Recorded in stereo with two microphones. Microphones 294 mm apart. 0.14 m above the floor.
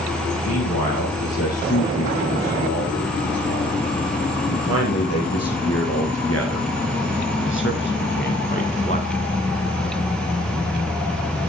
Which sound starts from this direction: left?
A man speaking, at 0.4 s.